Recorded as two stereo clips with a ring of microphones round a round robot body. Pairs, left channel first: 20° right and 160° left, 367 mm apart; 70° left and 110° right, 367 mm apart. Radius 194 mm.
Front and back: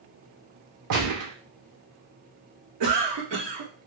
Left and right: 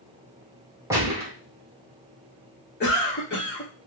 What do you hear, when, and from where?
0.9 s a gunshot: 170° left, 1.3 m
2.8 s a cough: 125° left, 1.3 m